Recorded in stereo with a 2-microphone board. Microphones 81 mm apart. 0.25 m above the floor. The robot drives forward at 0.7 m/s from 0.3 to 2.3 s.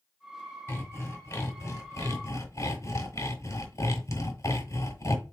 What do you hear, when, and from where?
0.7 s sawing: 35° left (ahead or behind), 1.8 m; by 5.3 s 45° left (ahead or behind), 1.5 m